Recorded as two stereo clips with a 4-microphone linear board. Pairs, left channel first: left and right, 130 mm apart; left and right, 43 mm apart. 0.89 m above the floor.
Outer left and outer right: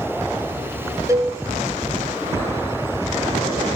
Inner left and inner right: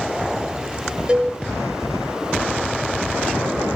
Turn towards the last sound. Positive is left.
turn(degrees=-25)  # may be behind; listen again after turning